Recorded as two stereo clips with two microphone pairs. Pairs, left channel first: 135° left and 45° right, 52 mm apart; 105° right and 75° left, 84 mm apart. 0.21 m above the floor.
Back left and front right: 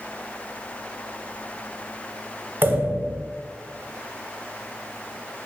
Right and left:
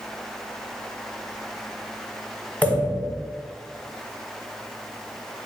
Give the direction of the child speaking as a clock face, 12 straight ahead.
No child speaking in this recording.